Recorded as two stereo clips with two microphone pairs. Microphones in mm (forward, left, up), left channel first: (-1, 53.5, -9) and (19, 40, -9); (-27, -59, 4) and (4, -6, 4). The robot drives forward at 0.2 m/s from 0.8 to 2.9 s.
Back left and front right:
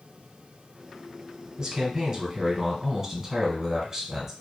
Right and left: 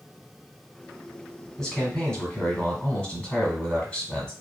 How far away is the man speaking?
About 1.2 m.